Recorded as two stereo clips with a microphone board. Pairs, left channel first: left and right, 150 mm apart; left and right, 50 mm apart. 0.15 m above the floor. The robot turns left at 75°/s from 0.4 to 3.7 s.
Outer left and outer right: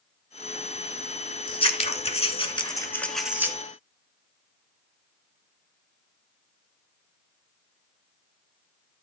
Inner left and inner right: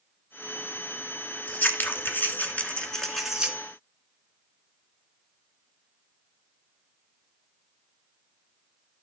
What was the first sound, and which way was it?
Scissors, 130° left.